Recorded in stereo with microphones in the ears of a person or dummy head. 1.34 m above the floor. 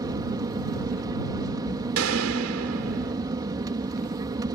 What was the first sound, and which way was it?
An aircraft, 25° right (ahead or behind).